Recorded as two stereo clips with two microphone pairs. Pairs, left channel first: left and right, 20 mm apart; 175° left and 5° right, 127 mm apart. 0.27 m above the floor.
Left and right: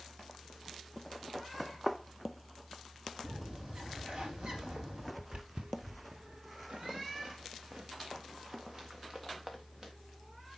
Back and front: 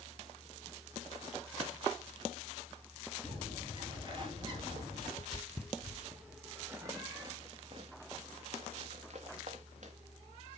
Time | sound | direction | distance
3.2 | a bird | 55° right | 4 m
5.2 | footsteps | 120° right | 1.7 m